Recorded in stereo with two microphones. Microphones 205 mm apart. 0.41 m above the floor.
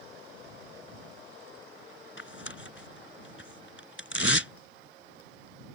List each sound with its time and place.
2.2 s tearing paper: 65° left (ahead or behind)